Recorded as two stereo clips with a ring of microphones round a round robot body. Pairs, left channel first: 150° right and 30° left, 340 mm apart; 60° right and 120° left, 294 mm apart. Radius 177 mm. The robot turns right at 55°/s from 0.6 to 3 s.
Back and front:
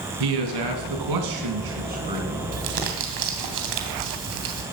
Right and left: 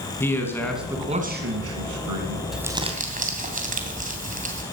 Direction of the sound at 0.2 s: 20° left.